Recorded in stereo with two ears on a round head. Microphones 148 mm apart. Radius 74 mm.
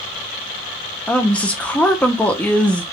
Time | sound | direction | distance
1.1 | a woman speaking | 10° left (ahead or behind) | 0.6 m